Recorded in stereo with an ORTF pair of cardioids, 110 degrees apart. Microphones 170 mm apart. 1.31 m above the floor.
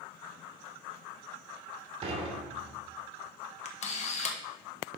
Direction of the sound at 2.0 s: 35° right.